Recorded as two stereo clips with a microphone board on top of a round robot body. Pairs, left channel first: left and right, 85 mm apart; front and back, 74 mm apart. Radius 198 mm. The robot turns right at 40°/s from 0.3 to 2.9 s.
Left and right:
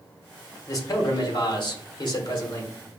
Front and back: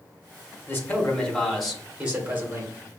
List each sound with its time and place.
0.7 s a man speaking: 50° left, 1.3 m; by 2.7 s 130° left, 1.3 m